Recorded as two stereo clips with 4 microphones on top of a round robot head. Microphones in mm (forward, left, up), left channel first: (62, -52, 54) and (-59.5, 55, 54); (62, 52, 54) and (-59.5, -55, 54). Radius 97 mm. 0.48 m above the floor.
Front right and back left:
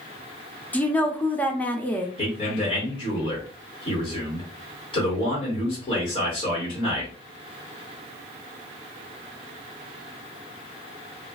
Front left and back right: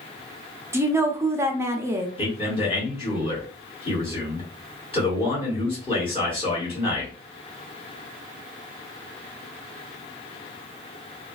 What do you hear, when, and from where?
0.7 s a woman speaking: 105° right, 0.7 m
2.2 s a man speaking: straight ahead, 1.9 m